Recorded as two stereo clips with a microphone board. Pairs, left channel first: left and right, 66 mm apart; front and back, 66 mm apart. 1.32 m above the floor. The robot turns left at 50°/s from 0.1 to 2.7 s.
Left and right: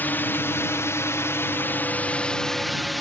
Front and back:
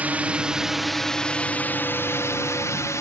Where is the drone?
130° left; by 3.0 s straight ahead.